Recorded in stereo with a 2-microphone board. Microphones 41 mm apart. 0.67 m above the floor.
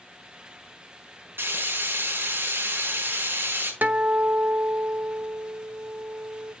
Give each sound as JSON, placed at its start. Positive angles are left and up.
{"t": 1.4, "sound": "frying", "side_deg": -65, "distance_m": 5.0}
{"t": 3.8, "sound": "a guitar", "side_deg": -45, "distance_m": 0.9}